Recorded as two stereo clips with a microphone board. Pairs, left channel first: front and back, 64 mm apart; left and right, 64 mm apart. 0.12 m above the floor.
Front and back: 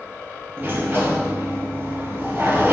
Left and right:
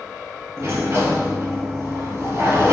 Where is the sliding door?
130° right, 0.6 m.